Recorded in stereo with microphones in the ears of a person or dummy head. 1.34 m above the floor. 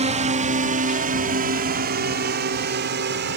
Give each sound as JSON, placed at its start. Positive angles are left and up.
{"t": 0.0, "sound": "a drone", "side_deg": -35}